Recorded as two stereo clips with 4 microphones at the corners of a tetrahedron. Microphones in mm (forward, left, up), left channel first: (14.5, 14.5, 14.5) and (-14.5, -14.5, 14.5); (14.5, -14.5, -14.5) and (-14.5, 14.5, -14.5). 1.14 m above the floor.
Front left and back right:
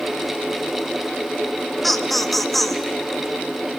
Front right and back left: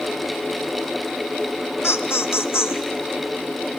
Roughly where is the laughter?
Ahead right.